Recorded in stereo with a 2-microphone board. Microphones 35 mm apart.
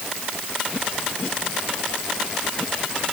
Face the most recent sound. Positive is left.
No sound to turn to.